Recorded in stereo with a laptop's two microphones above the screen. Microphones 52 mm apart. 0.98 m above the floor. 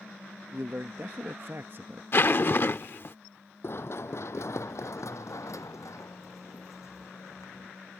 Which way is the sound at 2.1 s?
45° left (ahead or behind).